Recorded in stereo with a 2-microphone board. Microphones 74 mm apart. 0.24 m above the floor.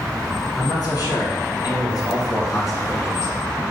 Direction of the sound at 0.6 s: 60° left (ahead or behind).